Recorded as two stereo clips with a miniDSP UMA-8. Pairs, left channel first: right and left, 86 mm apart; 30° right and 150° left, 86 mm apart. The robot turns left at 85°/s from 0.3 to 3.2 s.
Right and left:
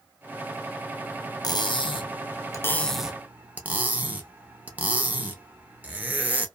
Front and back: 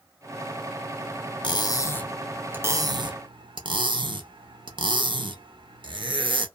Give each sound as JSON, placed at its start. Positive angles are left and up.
{"t": 1.4, "sound": "cutlery clinking", "azimuth_deg": -50, "distance_m": 0.6}